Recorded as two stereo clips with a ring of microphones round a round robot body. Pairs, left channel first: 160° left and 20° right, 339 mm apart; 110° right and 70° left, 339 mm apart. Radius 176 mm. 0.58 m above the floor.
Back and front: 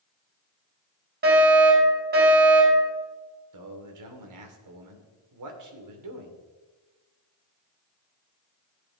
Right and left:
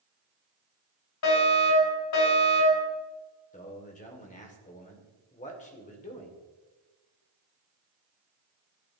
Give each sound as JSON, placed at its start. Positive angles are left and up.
{"t": 1.2, "sound": "a fire alarm", "azimuth_deg": -80, "distance_m": 5.5}
{"t": 3.5, "sound": "a man speaking", "azimuth_deg": -45, "distance_m": 2.0}